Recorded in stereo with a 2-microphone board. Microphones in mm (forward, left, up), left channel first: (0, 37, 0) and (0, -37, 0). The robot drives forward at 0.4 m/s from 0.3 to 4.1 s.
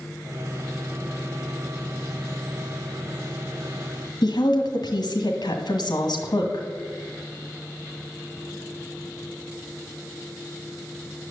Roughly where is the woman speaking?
Left.